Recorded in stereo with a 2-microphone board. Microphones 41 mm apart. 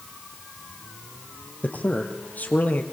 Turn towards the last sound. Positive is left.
turn(degrees=45)  # may be behind; listen again after turning